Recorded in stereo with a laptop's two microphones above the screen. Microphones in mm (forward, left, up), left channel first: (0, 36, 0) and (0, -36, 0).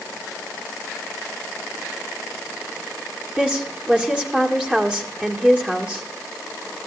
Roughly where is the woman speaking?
Centre.